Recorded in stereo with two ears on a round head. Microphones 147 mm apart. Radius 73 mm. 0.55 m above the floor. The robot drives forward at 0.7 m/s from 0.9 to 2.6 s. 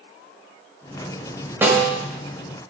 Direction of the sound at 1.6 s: 15° right (ahead or behind).